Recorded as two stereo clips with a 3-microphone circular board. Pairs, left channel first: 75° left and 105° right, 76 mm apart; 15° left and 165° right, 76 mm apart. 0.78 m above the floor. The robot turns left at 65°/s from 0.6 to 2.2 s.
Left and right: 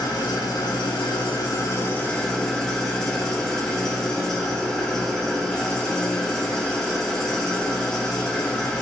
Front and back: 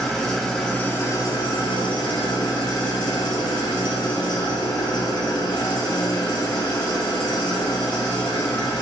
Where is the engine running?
100° left, 0.8 m; by 8.8 s 5° right, 0.8 m.